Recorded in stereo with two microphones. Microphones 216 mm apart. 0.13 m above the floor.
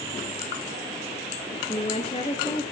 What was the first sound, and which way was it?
A woman speaking, 30° left (ahead or behind).